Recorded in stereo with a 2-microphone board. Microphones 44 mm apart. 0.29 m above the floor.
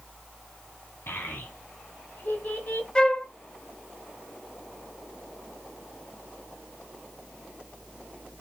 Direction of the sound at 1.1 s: 60° left (ahead or behind).